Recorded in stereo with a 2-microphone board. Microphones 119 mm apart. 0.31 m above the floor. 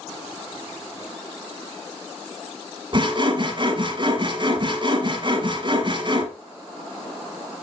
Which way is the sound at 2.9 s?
40° right (ahead or behind).